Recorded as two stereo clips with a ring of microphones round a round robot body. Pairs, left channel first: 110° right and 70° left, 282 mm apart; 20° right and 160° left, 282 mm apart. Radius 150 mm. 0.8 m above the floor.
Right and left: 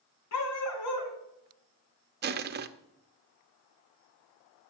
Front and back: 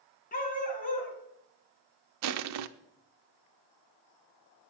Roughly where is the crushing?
Behind left.